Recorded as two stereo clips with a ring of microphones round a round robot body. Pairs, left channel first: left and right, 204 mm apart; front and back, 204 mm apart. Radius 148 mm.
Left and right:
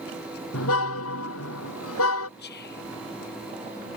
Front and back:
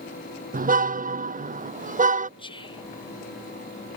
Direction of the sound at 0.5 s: 130° left.